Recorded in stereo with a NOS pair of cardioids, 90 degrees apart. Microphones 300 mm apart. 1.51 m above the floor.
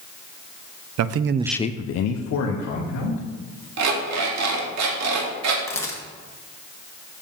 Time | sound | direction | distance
1.0 | a man speaking | 65° right | 0.8 m
3.8 | an alarm clock | 65° right | 2 m
5.7 | a camera shutter | 10° left | 2 m